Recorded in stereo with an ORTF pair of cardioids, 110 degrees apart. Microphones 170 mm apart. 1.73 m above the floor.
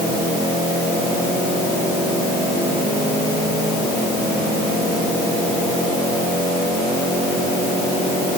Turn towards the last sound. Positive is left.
No sound to turn to.